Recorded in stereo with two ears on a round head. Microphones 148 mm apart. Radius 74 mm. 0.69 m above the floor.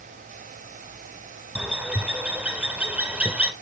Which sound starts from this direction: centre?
A bird, at 1.6 s.